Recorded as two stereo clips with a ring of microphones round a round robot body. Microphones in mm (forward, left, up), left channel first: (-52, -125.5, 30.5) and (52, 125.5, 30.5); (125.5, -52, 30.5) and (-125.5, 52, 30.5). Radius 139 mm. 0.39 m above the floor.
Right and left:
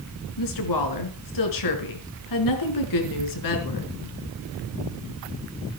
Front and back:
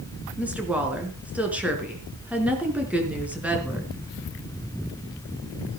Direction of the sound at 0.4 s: 115° right.